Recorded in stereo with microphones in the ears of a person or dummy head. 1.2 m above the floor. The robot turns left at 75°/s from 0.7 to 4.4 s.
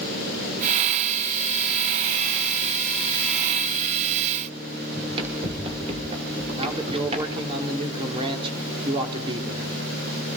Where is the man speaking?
35° right (ahead or behind), 3.5 m.